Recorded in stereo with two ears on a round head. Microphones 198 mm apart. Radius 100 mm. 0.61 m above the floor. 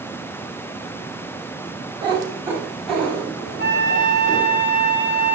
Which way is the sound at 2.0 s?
25° right (ahead or behind).